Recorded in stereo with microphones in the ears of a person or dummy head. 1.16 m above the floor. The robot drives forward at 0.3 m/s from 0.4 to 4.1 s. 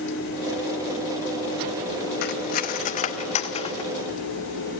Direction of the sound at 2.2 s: 45° left (ahead or behind).